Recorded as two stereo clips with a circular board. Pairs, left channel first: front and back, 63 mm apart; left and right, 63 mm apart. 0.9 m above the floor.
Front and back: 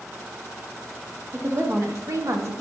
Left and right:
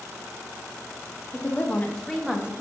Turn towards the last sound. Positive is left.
turn(degrees=-160)